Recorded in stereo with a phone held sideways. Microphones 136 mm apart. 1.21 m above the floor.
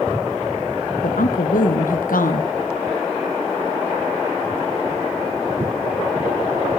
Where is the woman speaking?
85° left, 0.7 m.